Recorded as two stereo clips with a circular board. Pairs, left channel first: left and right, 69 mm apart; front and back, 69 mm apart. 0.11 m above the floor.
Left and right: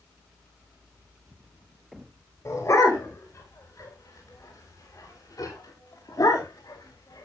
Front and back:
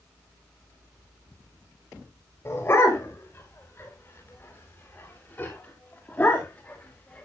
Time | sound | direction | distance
2.5 | a dog barking | 50° left | 7 m